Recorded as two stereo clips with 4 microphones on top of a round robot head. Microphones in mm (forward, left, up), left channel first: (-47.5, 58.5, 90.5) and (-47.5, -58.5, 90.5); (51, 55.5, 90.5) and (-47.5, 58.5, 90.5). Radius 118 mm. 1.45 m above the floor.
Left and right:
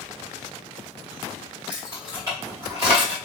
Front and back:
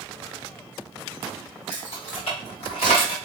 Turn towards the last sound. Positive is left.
turn(degrees=-30)